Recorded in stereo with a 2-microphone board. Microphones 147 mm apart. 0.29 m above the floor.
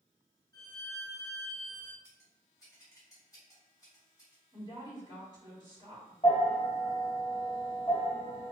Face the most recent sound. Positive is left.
turn(degrees=30)  # may be behind; listen again after turning